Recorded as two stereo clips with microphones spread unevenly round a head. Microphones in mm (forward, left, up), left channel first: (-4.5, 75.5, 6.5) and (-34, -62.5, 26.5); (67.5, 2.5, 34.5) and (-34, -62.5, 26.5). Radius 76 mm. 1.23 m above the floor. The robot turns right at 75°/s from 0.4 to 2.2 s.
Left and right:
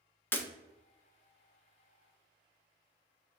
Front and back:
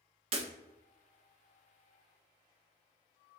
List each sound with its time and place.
0.3 s breaking glass: 160° left, 0.5 m; by 0.5 s 165° left, 0.5 m